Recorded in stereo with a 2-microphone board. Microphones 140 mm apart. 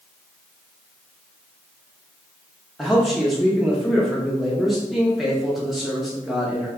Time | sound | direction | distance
2.8 | a man speaking | centre (ahead or behind) | 0.6 m